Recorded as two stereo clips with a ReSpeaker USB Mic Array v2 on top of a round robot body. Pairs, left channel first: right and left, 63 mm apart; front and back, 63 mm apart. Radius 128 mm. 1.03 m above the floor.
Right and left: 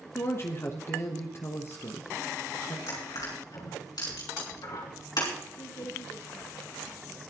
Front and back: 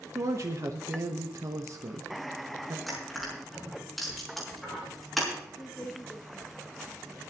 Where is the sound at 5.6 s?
65° right, 2.5 m.